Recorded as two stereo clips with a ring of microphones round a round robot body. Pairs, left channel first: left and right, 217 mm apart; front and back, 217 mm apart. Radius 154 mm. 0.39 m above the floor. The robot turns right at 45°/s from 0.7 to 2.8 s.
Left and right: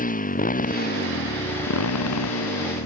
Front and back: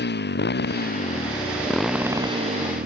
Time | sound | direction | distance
0.0 | a motorcycle | 40° left | ?